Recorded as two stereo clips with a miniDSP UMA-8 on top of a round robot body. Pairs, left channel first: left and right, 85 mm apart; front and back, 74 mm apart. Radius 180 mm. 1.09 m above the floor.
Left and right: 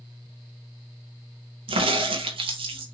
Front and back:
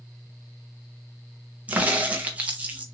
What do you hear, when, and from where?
1.7 s a crack: 110° right, 0.5 m